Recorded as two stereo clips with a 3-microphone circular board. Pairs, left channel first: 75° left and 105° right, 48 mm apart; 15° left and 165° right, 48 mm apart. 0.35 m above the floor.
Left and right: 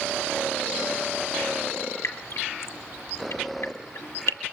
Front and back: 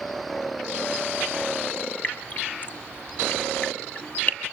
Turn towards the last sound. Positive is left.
turn(degrees=65)